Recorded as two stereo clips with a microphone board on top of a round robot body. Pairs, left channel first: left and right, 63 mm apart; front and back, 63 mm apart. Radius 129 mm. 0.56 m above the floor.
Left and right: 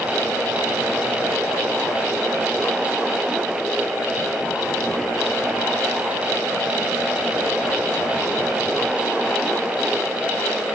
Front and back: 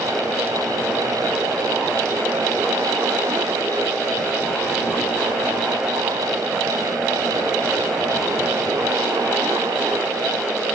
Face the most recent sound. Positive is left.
No sound to turn to.